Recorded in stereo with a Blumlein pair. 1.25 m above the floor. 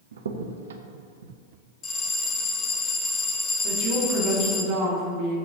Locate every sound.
0.1 s a crack: 65° right, 0.7 m
1.8 s a bell: 20° left, 1.1 m
3.6 s a woman speaking: 45° right, 2.5 m